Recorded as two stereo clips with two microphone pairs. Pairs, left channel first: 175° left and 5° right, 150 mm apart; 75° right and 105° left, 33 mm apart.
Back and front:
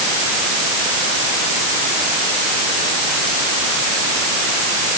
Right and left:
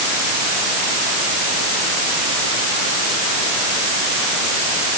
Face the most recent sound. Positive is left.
No sound to turn to.